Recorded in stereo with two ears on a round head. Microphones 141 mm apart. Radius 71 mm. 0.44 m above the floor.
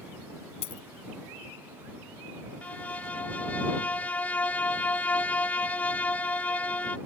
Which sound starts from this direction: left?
A dropped coin, at 0.6 s.